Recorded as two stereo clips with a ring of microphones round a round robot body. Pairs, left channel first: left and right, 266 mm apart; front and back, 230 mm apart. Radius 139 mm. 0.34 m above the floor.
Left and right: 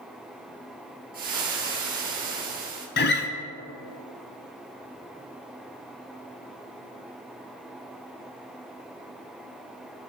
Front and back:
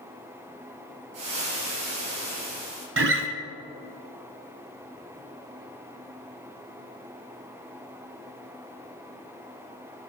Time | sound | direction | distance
1.1 | frying | 150° right | 3.5 m
3.0 | a guitar | 145° left | 1.0 m